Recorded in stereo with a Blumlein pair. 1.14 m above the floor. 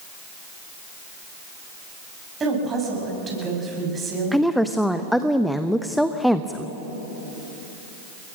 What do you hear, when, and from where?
2.4 s a woman speaking: 20° right, 7.5 m
4.3 s a woman speaking: straight ahead, 0.8 m